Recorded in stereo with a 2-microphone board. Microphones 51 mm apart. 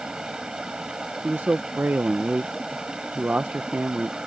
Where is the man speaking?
35° right (ahead or behind).